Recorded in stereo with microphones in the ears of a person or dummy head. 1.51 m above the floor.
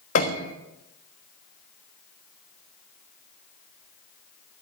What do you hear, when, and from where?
0.1 s a piano: 35° left (ahead or behind), 1.2 m